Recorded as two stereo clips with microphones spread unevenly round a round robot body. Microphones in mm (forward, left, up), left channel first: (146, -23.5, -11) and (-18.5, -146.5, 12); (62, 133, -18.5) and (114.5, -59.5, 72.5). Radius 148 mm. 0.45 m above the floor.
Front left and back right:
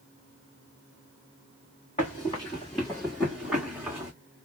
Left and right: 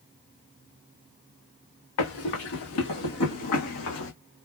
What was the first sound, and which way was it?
Running footsteps, 110° left.